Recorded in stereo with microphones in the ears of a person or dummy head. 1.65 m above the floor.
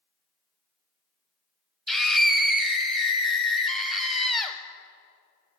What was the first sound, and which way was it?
A scream, centre (ahead or behind).